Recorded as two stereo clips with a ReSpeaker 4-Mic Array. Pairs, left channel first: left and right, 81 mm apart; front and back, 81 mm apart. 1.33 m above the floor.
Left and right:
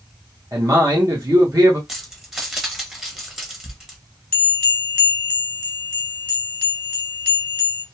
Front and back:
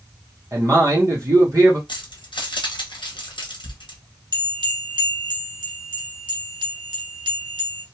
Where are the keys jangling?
5° right, 0.8 m.